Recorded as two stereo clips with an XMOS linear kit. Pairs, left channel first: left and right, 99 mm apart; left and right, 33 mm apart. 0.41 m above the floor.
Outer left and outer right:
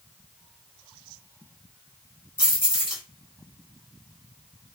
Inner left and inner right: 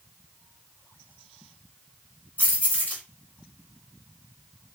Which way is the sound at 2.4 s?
50° left (ahead or behind).